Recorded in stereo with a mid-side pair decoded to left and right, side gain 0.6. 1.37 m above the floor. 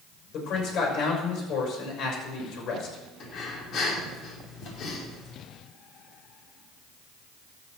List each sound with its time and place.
0.3 s a man speaking: 55° left, 6 m
3.2 s breathing: 50° left, 3.5 m